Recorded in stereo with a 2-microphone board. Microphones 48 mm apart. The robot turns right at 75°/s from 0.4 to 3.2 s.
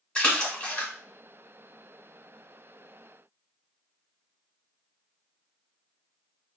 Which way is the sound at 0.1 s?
25° left (ahead or behind).